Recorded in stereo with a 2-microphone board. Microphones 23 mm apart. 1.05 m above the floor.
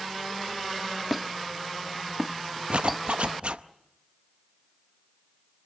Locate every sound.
1.1 s a squeak: centre (ahead or behind), 0.6 m
2.7 s a zipper: 55° right (ahead or behind), 0.7 m